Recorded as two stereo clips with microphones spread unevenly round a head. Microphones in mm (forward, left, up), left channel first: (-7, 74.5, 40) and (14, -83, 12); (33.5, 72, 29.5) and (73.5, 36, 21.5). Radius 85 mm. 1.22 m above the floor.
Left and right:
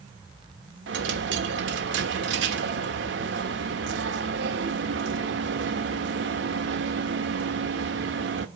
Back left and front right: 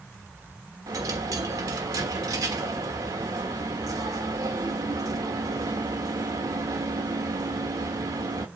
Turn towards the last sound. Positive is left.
turn(degrees=-70)